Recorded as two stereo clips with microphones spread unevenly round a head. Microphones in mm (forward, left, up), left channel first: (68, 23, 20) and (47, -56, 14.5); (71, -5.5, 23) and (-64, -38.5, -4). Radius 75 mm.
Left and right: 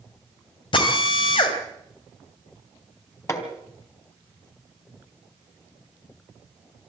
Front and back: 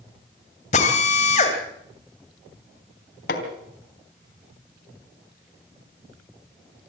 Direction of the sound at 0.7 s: 60° left.